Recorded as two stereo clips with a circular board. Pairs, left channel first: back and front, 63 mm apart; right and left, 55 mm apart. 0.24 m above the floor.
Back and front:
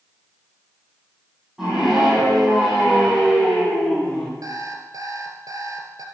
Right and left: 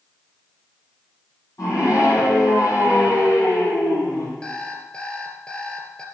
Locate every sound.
1.6 s a scream: 75° right, 7.5 m; by 4.3 s 105° right, 5.5 m
4.4 s an alarm clock: 20° right, 2.5 m